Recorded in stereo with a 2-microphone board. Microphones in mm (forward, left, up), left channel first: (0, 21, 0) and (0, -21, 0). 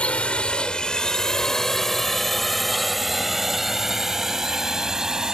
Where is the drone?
35° left (ahead or behind); by 5.3 s 15° right (ahead or behind).